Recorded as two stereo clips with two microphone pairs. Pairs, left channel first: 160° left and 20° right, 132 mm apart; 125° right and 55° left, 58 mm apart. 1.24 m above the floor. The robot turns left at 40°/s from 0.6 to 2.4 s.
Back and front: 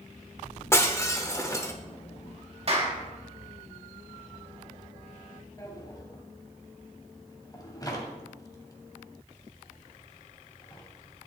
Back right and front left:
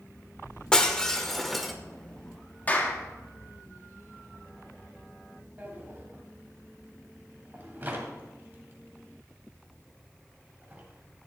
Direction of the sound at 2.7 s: 65° right.